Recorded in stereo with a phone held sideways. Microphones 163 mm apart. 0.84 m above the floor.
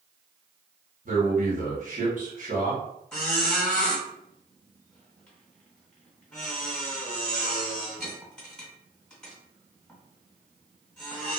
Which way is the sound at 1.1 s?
55° right (ahead or behind).